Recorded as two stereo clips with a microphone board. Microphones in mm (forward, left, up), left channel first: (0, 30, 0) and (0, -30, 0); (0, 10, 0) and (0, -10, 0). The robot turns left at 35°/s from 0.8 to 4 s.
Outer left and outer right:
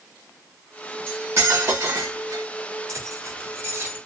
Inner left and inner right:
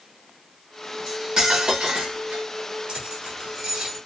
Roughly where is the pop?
No pop in this recording.